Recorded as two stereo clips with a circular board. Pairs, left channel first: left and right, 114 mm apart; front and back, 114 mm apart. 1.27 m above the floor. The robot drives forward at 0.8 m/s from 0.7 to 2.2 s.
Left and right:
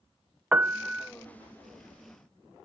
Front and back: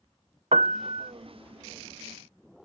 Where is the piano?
165° right; by 1.1 s 170° right.